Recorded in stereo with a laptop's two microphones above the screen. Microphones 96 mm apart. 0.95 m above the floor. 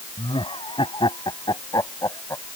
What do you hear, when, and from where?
0.2 s laughter: 65° left (ahead or behind); by 2.6 s 30° left (ahead or behind)